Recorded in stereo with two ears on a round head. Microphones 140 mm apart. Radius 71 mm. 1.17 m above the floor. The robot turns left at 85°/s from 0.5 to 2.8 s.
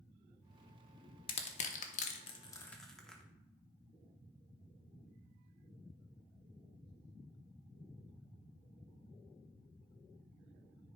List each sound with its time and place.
1.3 s crushing: 35° left (ahead or behind), 0.9 m; by 3.2 s 5° left (ahead or behind), 0.9 m